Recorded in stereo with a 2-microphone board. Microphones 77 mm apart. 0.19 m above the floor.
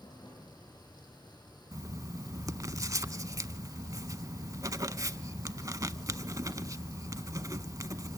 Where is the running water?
65° left (ahead or behind), 7.5 m.